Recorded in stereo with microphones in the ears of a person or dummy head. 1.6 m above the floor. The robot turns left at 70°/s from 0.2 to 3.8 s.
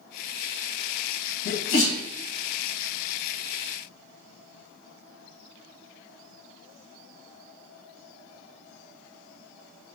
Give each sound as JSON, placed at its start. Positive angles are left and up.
{"t": 1.4, "sound": "a sneeze", "side_deg": 55, "distance_m": 1.6}